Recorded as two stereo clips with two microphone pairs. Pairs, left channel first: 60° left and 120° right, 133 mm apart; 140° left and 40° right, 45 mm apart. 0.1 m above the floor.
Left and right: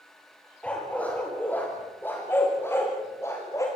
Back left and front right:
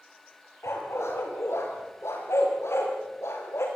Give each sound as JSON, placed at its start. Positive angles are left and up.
{"t": 0.6, "sound": "a dog barking", "azimuth_deg": 140, "distance_m": 8.0}